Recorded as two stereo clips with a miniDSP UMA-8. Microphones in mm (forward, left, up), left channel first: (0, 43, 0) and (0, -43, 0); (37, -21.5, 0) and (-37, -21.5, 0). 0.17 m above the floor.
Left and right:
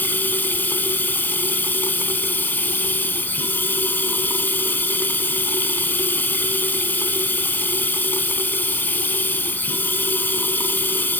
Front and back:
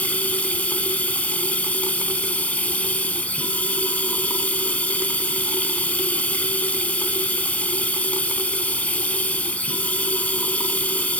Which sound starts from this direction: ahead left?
Running water, at 0.0 s.